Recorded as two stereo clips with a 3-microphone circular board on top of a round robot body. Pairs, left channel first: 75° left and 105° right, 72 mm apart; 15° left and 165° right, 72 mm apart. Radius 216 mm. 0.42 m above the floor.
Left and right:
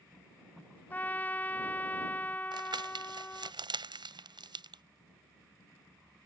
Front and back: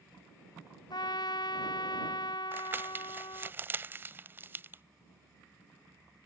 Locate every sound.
0.9 s a trumpet: 10° left
2.5 s crumpling: 100° right